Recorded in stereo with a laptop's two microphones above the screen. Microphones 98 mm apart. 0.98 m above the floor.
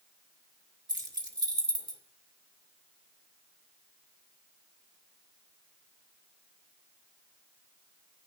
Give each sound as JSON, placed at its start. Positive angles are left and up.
{"t": 0.9, "sound": "keys jangling", "side_deg": -45, "distance_m": 1.8}